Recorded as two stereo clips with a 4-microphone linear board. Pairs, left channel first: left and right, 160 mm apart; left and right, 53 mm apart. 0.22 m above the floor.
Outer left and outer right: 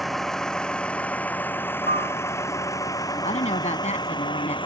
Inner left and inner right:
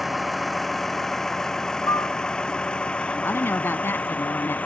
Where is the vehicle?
Centre (ahead or behind); by 4.7 s 30° left (ahead or behind).